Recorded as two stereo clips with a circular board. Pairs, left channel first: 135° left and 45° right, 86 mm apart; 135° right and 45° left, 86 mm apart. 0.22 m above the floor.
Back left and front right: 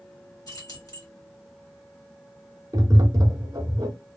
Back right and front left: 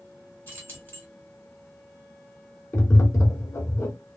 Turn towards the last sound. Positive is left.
turn(degrees=-85)